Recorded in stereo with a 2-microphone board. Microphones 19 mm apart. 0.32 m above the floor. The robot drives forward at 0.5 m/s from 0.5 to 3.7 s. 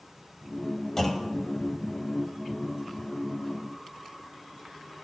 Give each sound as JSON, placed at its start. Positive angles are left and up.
{"t": 1.0, "sound": "a clunk", "side_deg": 20, "distance_m": 0.8}